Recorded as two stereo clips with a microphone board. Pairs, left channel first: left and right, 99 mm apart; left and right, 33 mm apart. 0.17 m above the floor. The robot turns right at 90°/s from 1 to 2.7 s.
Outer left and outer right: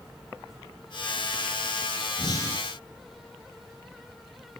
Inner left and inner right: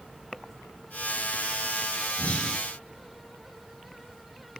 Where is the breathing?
125° left, 3 m; by 2.6 s 165° left, 3 m.